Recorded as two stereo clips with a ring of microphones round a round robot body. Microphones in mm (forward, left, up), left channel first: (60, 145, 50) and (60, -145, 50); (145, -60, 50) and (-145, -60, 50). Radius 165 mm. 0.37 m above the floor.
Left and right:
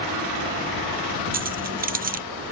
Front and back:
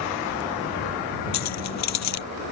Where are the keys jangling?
30° right.